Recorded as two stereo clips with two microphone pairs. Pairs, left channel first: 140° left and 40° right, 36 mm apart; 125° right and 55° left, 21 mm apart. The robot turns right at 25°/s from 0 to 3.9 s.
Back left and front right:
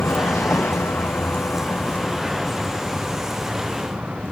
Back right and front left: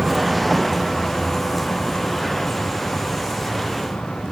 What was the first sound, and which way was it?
A vehicle, 125° left.